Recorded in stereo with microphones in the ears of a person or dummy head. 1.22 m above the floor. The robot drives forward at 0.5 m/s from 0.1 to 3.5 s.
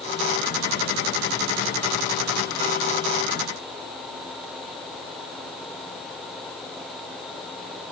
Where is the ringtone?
I don't hear a ringtone.